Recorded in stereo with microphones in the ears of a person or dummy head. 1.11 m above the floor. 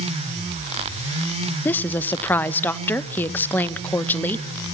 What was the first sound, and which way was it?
A woman speaking, 5° left (ahead or behind).